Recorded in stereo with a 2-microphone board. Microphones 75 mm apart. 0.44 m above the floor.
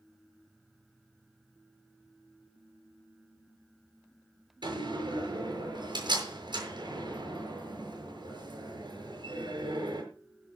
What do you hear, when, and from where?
4.6 s a door slam: 75° right (ahead or behind), 7 m